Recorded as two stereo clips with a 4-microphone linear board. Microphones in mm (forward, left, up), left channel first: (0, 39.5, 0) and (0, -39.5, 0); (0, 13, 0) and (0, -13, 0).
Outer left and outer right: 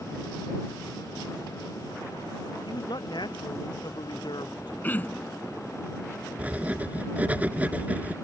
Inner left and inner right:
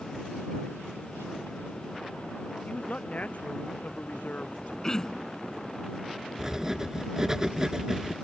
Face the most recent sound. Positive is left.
turn(degrees=-20)  # may be behind; listen again after turning